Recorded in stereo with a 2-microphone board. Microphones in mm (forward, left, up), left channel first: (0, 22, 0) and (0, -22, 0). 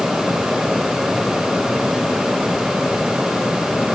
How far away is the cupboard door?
I don't hear a cupboard door.